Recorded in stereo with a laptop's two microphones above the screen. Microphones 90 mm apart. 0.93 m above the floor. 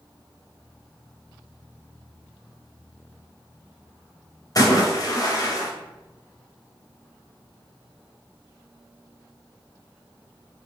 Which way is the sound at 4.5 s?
45° left (ahead or behind).